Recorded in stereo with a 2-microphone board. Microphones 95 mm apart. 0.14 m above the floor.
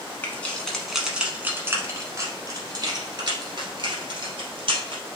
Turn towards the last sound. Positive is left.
turn(degrees=-65)  # may be behind; listen again after turning